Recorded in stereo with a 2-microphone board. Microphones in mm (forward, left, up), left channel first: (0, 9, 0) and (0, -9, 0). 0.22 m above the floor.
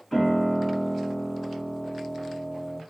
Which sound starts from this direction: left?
A piano, at 0.1 s.